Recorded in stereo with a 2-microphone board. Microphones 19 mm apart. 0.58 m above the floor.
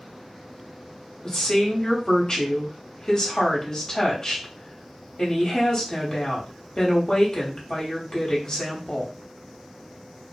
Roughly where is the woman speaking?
Left.